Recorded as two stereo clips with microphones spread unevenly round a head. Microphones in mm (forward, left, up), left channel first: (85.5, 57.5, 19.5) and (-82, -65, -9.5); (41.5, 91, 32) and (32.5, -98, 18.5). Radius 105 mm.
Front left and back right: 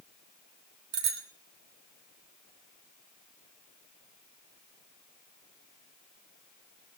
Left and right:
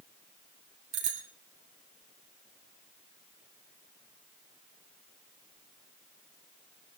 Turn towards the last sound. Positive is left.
turn(degrees=-155)